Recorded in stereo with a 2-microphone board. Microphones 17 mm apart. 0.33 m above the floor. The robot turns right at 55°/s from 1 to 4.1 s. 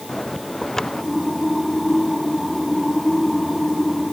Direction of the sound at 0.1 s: 25° left (ahead or behind).